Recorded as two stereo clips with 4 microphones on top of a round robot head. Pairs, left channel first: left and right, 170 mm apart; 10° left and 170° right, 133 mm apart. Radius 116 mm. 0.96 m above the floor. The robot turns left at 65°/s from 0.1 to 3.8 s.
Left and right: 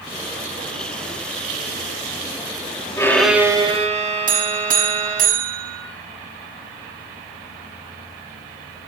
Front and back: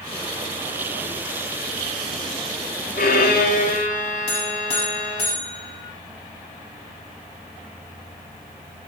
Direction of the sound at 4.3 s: 50° right.